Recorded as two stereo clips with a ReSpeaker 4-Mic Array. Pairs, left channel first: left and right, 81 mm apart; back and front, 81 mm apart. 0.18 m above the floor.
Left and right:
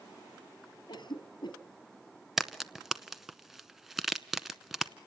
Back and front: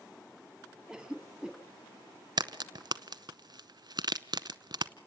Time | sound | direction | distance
0.9 | a cough | 85° left | 3 m
2.4 | a crack | 5° right | 0.7 m